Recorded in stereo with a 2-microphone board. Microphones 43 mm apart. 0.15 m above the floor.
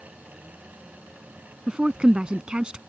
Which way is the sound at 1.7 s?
25° right (ahead or behind).